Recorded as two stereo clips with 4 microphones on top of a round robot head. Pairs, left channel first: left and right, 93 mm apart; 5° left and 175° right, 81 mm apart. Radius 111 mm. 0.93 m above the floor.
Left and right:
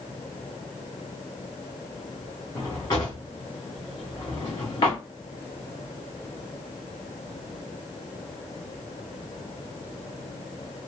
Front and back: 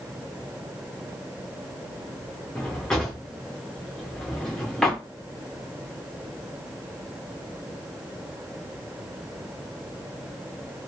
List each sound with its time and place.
2.5 s a drawer: 75° left, 0.5 m